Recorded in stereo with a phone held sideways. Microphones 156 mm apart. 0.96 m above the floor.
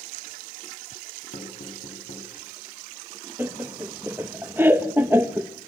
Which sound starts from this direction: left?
Knocking, at 1.3 s.